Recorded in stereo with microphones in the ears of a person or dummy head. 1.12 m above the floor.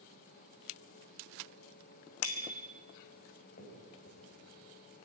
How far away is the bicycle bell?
About 3 m.